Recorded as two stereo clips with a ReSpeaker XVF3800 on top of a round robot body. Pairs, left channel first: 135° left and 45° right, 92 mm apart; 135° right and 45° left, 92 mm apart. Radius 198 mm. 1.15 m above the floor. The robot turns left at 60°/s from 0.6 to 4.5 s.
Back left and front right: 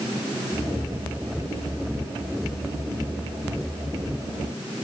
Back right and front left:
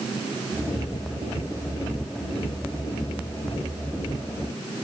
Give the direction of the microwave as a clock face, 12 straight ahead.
I don't hear a microwave.